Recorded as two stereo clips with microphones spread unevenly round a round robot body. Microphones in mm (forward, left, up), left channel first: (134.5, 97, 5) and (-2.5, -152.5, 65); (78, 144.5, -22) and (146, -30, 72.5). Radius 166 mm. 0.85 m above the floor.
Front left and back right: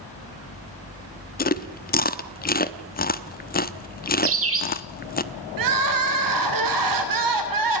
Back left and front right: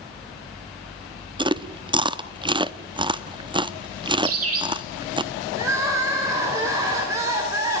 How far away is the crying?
About 3 m.